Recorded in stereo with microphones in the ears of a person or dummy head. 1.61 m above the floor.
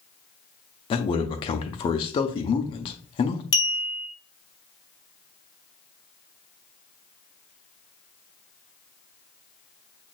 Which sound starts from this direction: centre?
A clink, at 3.5 s.